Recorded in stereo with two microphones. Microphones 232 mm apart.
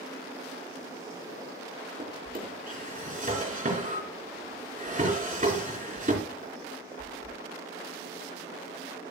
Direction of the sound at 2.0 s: 35° right (ahead or behind).